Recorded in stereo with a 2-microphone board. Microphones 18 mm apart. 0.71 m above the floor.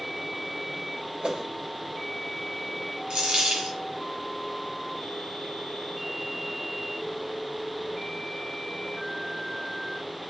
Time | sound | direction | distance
1.2 | a whoosh | 55° right (ahead or behind) | 0.7 m
3.1 | a dropped coin | 65° right (ahead or behind) | 1.7 m